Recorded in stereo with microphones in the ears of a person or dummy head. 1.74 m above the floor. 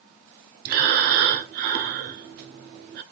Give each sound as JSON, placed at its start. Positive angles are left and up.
{"t": 0.7, "sound": "breathing", "side_deg": -55, "distance_m": 0.5}